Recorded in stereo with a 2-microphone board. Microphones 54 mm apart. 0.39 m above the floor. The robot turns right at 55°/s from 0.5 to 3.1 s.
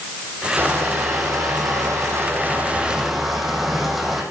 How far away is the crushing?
About 4.5 m.